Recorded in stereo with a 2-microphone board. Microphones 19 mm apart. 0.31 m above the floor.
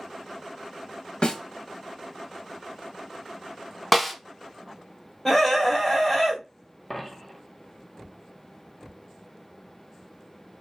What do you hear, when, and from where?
1.2 s a snare drum: 55° left (ahead or behind), 0.5 m
3.9 s a snare drum: 5° left (ahead or behind), 0.5 m
5.2 s a scream: 25° left (ahead or behind), 1.2 m
6.9 s a dropped coin: 10° left (ahead or behind), 0.8 m